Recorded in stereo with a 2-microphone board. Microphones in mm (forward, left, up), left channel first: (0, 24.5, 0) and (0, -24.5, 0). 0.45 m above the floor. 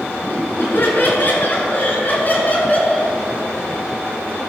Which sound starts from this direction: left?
Laughter, at 0.2 s.